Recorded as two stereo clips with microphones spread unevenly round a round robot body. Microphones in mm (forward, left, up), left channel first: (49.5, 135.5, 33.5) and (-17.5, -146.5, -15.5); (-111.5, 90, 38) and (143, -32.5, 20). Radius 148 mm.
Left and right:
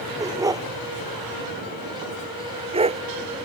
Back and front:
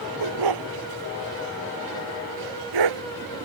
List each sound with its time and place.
0.2 s a dog barking: 25° right; by 3.0 s 30° right